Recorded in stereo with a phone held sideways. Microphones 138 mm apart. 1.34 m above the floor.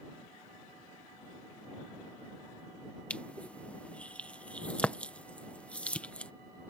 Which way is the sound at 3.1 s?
10° left (ahead or behind).